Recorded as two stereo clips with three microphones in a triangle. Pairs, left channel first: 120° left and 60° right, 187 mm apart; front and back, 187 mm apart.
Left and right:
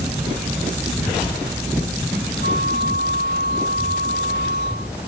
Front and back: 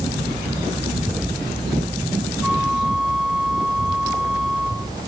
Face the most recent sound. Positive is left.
turn(degrees=95)